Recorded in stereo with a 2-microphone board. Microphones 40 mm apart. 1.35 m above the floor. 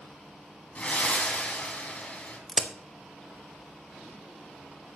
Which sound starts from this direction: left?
Breathing, at 0.8 s.